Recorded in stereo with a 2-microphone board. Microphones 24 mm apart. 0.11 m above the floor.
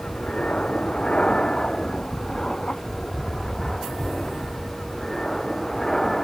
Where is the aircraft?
50° left (ahead or behind); by 6.2 s 10° left (ahead or behind).